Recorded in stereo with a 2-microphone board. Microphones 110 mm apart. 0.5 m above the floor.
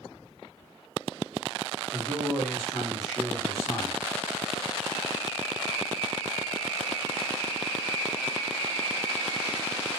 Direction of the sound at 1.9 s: Centre (ahead or behind).